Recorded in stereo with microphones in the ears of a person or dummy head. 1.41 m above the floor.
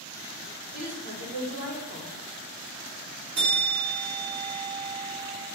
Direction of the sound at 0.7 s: 80° right.